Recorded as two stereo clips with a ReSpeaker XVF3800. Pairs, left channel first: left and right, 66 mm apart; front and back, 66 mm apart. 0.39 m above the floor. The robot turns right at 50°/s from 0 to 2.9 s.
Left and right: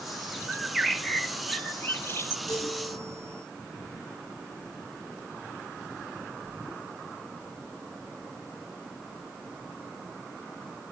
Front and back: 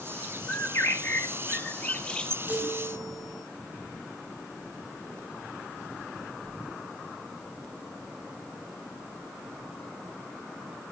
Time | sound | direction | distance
0.5 | a bird | 20° right | 1.0 m
2.5 | a chime | 115° left | 8.5 m